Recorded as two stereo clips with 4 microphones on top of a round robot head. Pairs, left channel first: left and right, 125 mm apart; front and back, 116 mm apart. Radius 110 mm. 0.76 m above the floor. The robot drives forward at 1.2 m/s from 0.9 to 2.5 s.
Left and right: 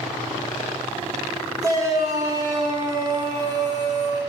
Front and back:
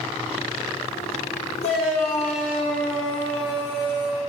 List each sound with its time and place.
1.6 s a shout: 30° right, 4 m; by 4.2 s 40° right, 3 m